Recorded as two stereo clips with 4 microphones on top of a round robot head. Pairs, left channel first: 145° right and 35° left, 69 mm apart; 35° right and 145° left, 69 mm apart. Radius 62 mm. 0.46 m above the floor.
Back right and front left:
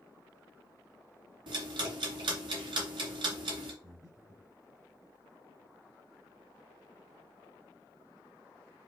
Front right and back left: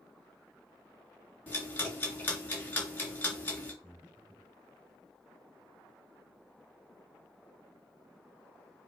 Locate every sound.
1.5 s ticking: 30° left, 3 m
3.8 s breathing: 70° left, 4.5 m